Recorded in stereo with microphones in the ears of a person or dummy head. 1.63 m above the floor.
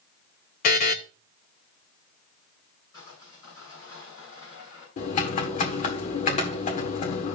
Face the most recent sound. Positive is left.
turn(degrees=35)  # may be behind; listen again after turning